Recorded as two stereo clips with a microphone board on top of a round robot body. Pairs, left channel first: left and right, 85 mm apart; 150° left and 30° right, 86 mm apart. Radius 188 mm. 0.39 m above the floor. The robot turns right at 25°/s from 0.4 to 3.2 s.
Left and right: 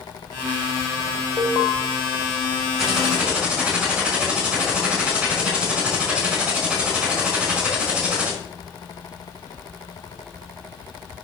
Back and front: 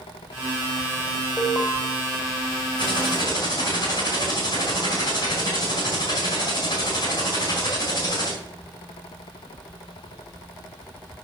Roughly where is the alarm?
Right.